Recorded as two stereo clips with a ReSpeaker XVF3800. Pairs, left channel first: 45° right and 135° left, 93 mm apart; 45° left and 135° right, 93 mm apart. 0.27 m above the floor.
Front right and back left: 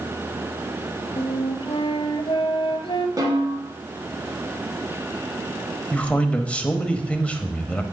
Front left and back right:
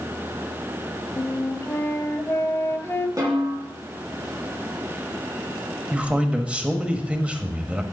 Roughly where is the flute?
Ahead.